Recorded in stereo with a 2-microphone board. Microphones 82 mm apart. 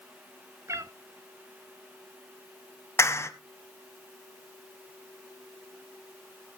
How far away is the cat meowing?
About 0.8 m.